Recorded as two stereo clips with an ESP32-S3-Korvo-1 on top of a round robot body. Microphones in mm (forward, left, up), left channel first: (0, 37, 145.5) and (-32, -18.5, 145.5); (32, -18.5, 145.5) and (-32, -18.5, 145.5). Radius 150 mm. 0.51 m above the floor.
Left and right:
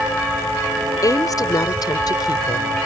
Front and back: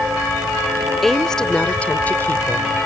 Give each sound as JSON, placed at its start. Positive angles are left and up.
{"t": 1.0, "sound": "a woman speaking", "azimuth_deg": 85}